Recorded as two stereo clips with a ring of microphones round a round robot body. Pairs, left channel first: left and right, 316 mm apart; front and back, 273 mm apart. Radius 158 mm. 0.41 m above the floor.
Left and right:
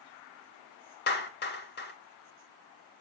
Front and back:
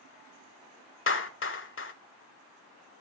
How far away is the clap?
About 1.9 m.